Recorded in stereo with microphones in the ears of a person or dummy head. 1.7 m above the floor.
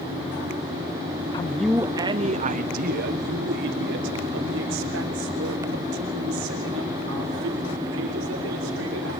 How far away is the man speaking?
About 0.7 m.